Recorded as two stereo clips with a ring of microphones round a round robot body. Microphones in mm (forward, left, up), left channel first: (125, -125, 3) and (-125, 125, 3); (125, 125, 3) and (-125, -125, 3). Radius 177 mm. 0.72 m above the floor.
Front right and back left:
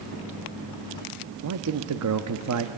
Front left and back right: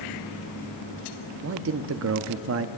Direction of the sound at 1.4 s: 175° left.